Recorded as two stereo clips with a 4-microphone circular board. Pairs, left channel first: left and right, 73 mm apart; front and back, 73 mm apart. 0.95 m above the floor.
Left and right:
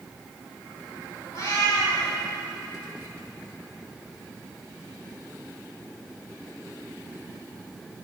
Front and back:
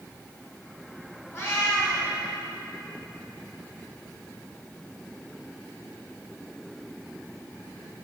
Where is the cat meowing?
60° left, 2.5 m.